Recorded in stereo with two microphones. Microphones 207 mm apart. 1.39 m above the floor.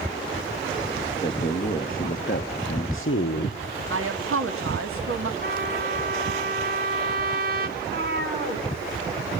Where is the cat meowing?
55° right (ahead or behind), 3 m.